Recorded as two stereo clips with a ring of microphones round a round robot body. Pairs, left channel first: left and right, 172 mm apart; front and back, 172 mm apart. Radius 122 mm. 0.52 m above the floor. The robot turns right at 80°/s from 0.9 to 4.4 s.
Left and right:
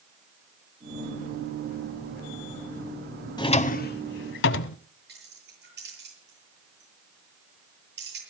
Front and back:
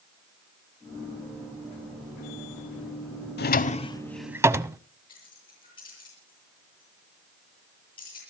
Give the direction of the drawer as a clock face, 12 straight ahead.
11 o'clock.